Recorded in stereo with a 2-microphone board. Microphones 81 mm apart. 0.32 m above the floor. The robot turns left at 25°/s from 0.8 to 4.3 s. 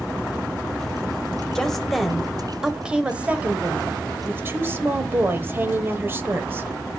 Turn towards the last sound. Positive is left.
turn(degrees=-55)